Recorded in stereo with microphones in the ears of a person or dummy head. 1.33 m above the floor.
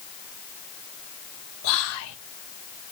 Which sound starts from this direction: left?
Whispering, at 1.6 s.